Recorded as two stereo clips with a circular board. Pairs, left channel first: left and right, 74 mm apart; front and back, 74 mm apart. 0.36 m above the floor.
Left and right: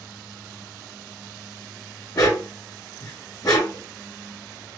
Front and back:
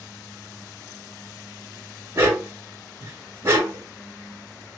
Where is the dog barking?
125° left, 1.0 m.